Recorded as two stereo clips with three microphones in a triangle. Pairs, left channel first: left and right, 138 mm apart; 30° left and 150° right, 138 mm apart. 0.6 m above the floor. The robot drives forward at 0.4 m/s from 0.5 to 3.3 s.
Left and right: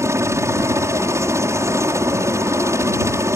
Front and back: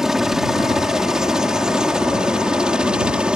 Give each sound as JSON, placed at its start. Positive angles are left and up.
{"t": 0.0, "sound": "a helicopter", "azimuth_deg": -70}